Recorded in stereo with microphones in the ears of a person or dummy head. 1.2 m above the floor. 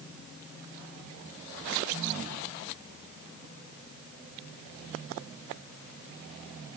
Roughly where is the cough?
I don't hear a cough.